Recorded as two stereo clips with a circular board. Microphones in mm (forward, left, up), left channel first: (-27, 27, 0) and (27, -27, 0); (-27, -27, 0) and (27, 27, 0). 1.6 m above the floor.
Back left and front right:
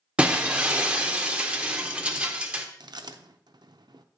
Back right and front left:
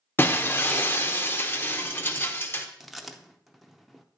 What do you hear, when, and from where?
0.2 s breaking glass: 105° right, 0.7 m
2.8 s chewing: 45° right, 0.5 m